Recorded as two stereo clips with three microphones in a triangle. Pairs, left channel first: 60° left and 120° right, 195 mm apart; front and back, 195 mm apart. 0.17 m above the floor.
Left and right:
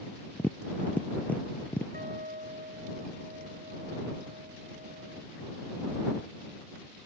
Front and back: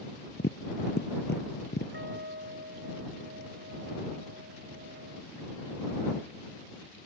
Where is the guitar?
160° right.